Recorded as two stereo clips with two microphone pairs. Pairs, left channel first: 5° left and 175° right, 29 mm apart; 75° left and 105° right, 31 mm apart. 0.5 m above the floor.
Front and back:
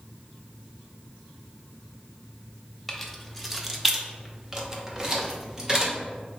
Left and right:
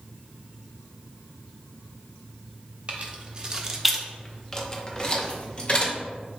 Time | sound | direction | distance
2.9 | keys jangling | 80° right | 0.8 m